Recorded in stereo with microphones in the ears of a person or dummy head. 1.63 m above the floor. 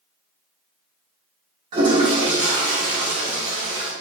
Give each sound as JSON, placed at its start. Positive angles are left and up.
{"t": 1.7, "sound": "a toilet flushing", "side_deg": -25, "distance_m": 0.9}